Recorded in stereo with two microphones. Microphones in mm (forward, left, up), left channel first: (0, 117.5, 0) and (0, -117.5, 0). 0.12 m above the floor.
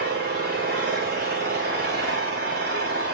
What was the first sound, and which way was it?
An engine running, 45° right (ahead or behind).